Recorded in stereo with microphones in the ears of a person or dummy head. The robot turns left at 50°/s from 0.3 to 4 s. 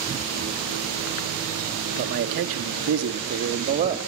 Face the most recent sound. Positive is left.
turn(degrees=-150)